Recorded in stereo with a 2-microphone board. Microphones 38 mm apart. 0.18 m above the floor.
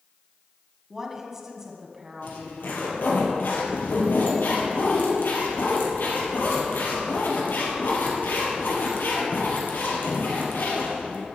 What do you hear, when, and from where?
0.9 s a woman speaking: 10° right (ahead or behind), 1.7 m; by 3.2 s 15° right (ahead or behind), 2.5 m
2.2 s a zipper: 75° left (ahead or behind), 3 m